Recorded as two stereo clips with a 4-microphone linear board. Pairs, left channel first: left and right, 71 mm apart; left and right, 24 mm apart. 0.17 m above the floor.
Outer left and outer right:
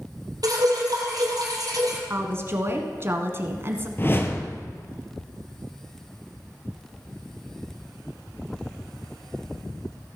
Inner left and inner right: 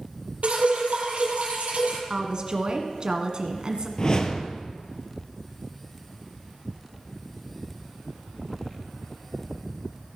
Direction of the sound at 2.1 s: 35° right (ahead or behind).